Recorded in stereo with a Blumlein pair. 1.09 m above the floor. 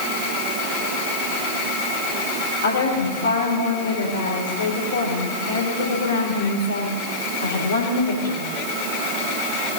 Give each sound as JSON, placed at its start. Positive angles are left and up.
{"t": 2.6, "sound": "a woman speaking", "azimuth_deg": 65, "distance_m": 3.5}